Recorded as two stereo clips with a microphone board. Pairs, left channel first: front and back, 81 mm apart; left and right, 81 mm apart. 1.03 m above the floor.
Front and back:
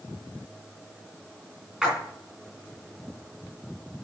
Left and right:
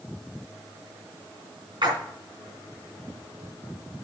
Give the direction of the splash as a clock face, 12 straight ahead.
3 o'clock.